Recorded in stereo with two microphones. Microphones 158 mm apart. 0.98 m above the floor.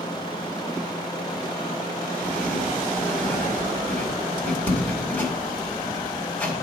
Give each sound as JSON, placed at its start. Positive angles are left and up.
{"t": 2.2, "sound": "writing", "side_deg": 10, "distance_m": 2.0}